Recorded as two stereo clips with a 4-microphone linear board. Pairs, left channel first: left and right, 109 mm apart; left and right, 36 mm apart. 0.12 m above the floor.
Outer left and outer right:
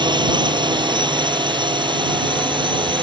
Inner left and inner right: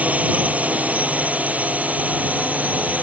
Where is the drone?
45° right (ahead or behind).